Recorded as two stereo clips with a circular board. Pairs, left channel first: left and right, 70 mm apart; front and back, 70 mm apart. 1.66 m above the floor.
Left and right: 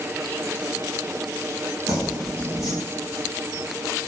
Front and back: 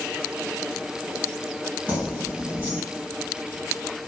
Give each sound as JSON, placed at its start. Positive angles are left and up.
{"t": 1.9, "sound": "keys jangling", "azimuth_deg": -115, "distance_m": 1.5}